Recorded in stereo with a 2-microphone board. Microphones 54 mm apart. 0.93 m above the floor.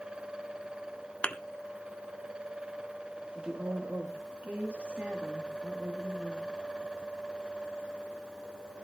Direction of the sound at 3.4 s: 30° right (ahead or behind).